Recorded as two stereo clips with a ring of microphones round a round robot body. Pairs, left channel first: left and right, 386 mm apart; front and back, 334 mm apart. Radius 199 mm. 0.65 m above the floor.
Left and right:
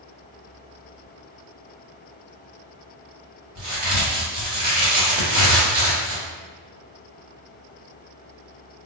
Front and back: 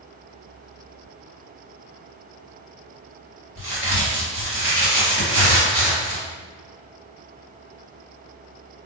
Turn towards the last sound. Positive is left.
turn(degrees=-120)